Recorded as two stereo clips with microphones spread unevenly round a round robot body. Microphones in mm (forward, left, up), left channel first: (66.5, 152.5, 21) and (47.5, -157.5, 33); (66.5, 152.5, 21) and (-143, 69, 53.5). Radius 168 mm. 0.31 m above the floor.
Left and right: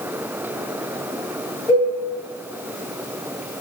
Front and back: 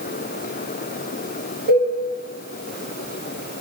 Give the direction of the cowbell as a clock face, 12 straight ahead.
7 o'clock.